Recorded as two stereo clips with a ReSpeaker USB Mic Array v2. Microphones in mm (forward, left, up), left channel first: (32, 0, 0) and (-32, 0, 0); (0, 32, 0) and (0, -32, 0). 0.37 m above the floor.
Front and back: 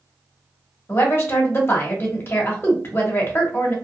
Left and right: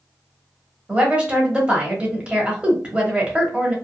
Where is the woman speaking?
30° right, 1.0 m.